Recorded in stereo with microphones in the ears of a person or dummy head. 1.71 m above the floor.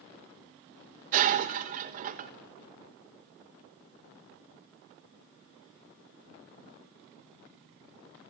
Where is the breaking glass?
40° right (ahead or behind), 1.1 m.